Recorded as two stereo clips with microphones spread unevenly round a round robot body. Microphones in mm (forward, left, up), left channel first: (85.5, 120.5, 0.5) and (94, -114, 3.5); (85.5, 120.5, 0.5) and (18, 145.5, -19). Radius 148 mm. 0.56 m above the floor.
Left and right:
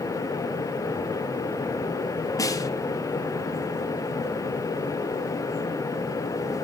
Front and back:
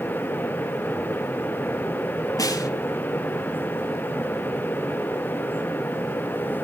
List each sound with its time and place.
2.4 s a snare drum: 15° left, 2.5 m